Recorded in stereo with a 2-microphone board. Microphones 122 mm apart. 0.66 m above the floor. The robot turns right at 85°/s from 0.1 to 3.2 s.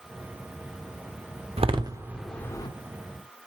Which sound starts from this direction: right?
A door slam, at 1.6 s.